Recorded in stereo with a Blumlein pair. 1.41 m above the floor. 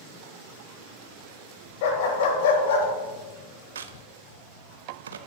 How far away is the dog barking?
About 3 m.